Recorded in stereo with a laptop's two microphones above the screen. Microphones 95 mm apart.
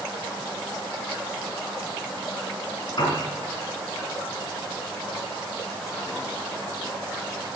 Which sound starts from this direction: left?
A piano, at 3.0 s.